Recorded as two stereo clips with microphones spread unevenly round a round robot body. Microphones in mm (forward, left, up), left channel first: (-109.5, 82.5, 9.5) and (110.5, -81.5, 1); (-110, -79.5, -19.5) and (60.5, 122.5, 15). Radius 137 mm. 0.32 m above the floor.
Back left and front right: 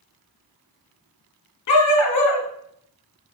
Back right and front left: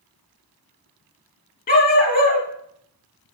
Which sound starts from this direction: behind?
A dog barking, at 1.7 s.